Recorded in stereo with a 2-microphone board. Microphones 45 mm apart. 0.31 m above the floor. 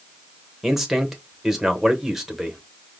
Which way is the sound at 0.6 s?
5° right (ahead or behind).